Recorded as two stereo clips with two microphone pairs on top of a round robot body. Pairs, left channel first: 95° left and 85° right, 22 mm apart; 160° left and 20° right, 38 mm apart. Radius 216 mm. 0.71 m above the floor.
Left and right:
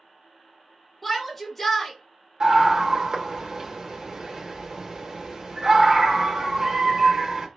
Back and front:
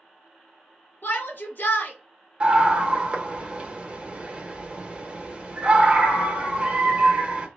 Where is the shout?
160° left, 1.7 m.